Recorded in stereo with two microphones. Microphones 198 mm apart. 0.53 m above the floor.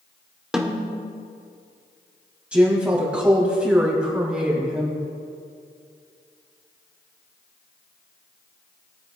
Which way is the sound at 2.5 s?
5° right (ahead or behind).